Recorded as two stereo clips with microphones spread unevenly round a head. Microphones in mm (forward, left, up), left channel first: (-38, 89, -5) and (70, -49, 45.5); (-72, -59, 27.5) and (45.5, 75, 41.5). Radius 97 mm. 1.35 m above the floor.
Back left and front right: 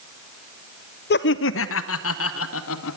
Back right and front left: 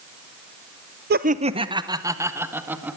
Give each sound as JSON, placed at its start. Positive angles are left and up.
{"t": 1.1, "sound": "laughter", "azimuth_deg": 90, "distance_m": 0.6}